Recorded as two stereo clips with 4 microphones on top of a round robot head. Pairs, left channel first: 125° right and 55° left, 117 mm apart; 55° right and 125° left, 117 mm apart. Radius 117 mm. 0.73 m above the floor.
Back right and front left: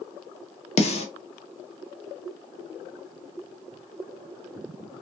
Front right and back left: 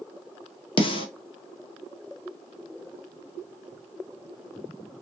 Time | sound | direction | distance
0.8 | a snare drum | 100° right | 0.9 m